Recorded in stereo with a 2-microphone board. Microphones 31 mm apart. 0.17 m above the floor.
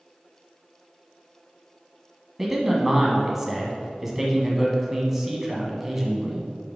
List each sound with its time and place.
2.4 s a man speaking: 10° right (ahead or behind), 1.0 m